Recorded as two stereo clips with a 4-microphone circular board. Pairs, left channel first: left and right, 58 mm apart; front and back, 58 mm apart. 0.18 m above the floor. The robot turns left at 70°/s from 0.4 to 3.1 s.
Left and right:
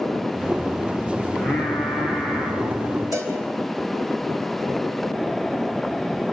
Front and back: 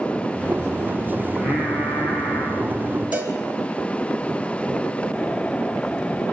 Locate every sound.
1.3 s singing: 30° left, 4.5 m; by 3.0 s 90° right, 4.5 m
3.1 s a cowbell: 120° right, 2 m